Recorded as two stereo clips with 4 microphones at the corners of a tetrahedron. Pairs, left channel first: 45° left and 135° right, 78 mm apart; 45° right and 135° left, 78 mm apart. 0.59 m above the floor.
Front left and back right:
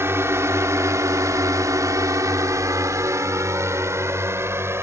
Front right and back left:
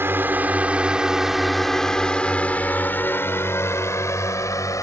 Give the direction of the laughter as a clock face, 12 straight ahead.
No laughter in this recording.